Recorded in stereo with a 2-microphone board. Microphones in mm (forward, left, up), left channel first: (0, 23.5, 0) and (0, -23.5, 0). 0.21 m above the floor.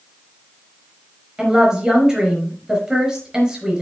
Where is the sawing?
I don't hear sawing.